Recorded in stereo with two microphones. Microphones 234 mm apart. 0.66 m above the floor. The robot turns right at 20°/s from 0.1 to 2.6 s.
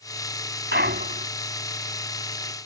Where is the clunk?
50° right (ahead or behind); by 1.3 s 35° right (ahead or behind).